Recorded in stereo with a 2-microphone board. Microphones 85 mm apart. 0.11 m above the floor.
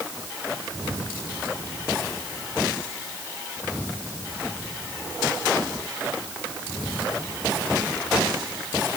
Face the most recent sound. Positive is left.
No sound to turn to.